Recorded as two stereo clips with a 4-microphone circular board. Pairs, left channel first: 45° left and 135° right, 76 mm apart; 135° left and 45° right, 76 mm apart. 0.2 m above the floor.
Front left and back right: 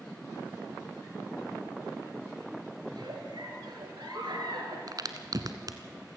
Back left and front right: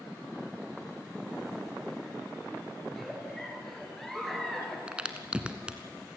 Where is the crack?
120° right, 1.4 m.